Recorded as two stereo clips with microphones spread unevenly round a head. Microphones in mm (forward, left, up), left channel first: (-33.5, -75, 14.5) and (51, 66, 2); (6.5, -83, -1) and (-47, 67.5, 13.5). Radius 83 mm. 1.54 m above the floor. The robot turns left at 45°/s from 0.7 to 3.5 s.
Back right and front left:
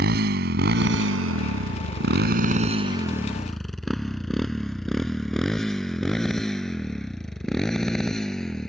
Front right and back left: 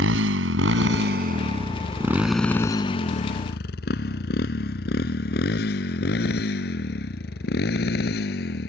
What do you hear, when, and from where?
0.0 s a motorcycle: 95° left; by 8.7 s 35° right